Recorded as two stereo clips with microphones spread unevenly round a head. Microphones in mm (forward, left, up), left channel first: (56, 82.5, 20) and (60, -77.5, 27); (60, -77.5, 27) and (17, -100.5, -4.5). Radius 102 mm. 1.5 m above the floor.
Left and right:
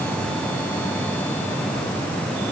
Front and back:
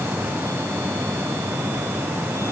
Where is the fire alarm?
I don't hear a fire alarm.